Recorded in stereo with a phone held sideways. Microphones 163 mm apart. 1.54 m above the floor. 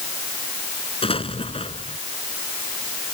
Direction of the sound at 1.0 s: 35° left (ahead or behind).